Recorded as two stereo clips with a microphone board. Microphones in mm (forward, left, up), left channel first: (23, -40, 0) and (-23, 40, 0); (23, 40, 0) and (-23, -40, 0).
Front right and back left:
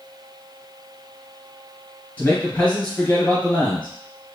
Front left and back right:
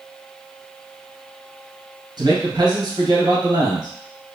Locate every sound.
2.2 s a man speaking: 130° right, 2 m